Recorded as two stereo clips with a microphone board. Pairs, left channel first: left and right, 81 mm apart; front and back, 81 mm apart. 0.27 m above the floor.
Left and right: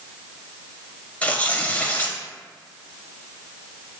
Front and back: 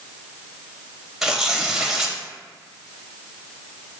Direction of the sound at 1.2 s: 105° left.